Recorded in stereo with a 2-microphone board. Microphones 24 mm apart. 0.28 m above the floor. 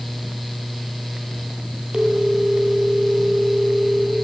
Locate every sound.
1.9 s a phone ringing: 30° right (ahead or behind), 4 m